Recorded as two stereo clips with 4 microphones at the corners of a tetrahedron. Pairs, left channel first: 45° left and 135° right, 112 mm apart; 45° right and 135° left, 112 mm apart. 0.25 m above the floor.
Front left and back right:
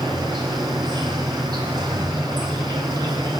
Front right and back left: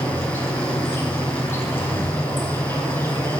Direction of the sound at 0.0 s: 105° right.